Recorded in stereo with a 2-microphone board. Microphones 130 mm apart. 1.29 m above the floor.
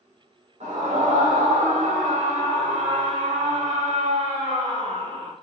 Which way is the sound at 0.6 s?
85° right.